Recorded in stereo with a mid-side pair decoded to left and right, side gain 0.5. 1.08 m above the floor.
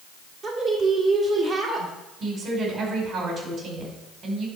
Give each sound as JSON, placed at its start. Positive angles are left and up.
{"t": 0.4, "sound": "a woman speaking", "azimuth_deg": -60, "distance_m": 2.0}
{"t": 2.2, "sound": "a woman speaking", "azimuth_deg": -55, "distance_m": 4.5}